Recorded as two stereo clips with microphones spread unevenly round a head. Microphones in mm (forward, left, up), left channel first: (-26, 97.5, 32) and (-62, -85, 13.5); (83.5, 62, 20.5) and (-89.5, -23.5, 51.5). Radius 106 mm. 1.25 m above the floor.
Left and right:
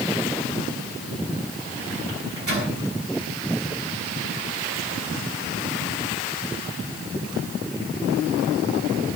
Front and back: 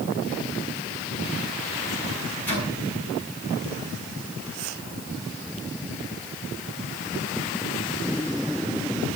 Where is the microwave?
55° right, 8 m.